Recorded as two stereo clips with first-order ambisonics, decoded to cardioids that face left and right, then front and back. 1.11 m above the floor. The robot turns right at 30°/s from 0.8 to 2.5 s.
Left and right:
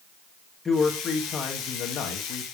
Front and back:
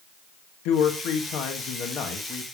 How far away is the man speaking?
About 1.9 m.